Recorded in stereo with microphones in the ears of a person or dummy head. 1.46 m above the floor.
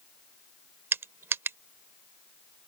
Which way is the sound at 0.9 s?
15° right (ahead or behind).